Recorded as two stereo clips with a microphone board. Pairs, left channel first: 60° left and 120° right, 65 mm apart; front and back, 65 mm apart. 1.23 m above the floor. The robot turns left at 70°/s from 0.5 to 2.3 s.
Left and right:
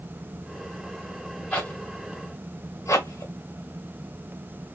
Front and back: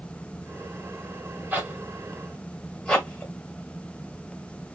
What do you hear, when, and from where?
1.5 s a zipper: 130° left, 1.4 m; by 3.3 s 75° left, 1.4 m